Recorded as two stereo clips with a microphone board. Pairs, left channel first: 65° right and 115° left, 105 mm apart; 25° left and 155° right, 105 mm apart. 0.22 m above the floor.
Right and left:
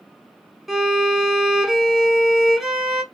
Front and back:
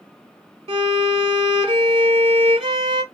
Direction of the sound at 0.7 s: 160° right.